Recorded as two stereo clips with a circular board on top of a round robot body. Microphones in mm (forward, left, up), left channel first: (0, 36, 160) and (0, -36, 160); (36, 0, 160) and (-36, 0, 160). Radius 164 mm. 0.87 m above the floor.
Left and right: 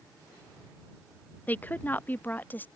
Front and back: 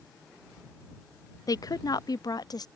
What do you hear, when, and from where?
1.5 s a woman speaking: 25° left